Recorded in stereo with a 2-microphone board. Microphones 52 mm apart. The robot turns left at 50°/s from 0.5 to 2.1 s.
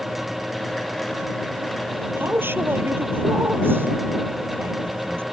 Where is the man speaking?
45° right (ahead or behind).